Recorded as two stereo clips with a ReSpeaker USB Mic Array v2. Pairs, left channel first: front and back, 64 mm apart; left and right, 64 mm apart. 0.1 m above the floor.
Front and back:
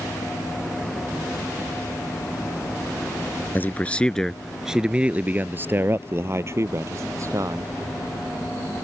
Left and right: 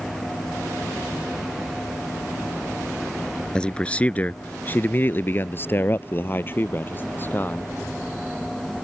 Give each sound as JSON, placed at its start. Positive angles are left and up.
{"t": 3.5, "sound": "a man speaking", "azimuth_deg": 25}